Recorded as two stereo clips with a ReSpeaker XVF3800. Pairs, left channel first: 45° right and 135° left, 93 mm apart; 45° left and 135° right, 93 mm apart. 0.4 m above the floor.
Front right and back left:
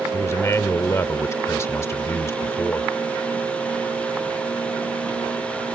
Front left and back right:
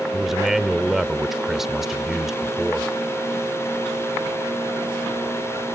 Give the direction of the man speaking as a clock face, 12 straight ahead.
2 o'clock.